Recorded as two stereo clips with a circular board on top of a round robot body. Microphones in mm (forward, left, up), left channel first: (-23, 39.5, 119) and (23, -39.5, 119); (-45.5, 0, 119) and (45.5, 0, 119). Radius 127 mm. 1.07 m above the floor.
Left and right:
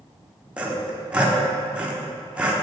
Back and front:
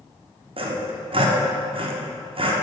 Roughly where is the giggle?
I don't hear a giggle.